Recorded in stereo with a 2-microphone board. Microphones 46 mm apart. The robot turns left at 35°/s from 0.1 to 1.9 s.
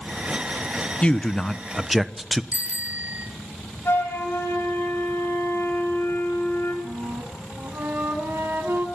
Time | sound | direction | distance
1.0 | a man speaking | 25° left | 1.1 m
2.5 | a bicycle bell | 35° right (ahead or behind) | 4 m
3.9 | a flute | 70° left (ahead or behind) | 8.5 m
6.8 | a flute | 60° right (ahead or behind) | 7.5 m